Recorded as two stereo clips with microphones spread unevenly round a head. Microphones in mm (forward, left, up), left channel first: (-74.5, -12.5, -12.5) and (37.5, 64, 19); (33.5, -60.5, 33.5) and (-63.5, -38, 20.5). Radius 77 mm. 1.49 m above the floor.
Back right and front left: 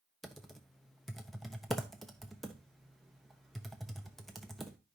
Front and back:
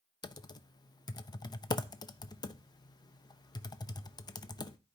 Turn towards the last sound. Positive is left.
turn(degrees=-60)